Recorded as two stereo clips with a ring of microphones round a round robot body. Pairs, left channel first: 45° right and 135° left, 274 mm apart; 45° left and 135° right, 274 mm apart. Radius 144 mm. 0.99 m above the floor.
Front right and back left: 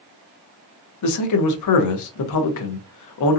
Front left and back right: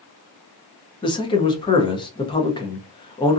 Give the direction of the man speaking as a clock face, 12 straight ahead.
1 o'clock.